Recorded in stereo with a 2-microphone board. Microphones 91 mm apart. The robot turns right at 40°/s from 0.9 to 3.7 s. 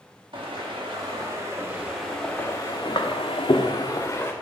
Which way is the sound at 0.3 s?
65° right (ahead or behind).